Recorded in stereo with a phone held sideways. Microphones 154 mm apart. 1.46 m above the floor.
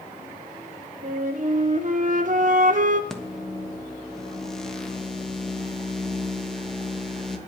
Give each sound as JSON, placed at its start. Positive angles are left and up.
{"t": 1.0, "sound": "a flute", "side_deg": -55, "distance_m": 1.1}
{"t": 3.1, "sound": "a microwave", "side_deg": 5, "distance_m": 1.2}